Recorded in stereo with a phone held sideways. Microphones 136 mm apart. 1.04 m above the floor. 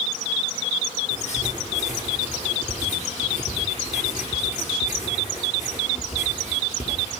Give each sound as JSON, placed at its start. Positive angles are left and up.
{"t": 1.1, "sound": "writing", "side_deg": 60, "distance_m": 5.5}